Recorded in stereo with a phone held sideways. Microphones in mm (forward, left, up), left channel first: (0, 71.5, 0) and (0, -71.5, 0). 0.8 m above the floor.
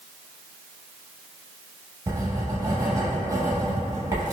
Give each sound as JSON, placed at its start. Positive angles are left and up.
{"t": 2.1, "sound": "writing", "side_deg": -25, "distance_m": 0.7}